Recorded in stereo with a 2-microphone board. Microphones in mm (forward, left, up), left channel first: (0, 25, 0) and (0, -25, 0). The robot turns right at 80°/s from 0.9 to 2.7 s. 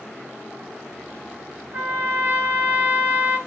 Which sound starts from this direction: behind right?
A trumpet, at 1.7 s.